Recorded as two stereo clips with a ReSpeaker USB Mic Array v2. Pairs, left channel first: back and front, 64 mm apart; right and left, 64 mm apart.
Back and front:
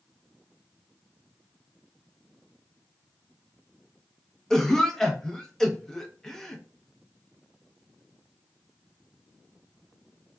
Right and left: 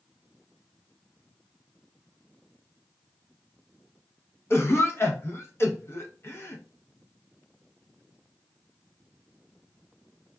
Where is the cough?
100° right, 0.7 m.